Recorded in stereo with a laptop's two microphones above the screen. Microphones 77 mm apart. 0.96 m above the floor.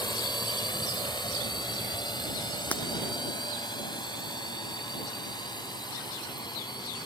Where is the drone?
75° left (ahead or behind); by 7.1 s 70° left (ahead or behind).